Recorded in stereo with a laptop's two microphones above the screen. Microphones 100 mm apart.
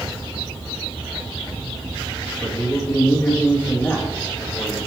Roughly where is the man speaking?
Left.